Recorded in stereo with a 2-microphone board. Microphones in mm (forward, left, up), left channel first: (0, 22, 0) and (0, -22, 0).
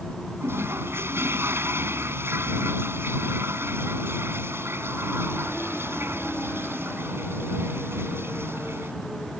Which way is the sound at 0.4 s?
60° right (ahead or behind).